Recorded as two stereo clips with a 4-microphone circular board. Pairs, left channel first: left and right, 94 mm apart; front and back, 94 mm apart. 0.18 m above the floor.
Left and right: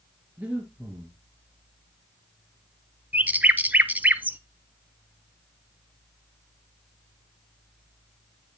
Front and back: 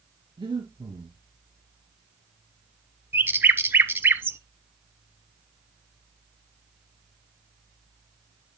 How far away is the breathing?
About 3 m.